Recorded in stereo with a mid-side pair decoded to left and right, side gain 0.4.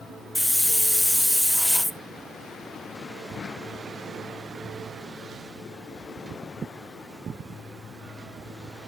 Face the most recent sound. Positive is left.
turn(degrees=10)